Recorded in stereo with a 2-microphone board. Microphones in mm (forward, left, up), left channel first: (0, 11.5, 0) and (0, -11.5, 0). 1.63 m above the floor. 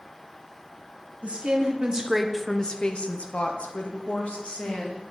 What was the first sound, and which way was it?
A woman speaking, 60° right (ahead or behind).